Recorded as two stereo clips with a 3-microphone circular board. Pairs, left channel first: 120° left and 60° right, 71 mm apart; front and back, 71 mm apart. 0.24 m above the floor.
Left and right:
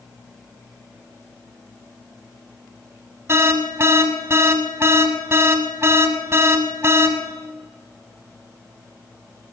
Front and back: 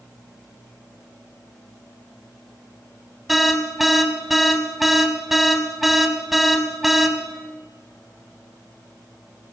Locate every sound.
3.3 s an alarm: 95° right, 1.2 m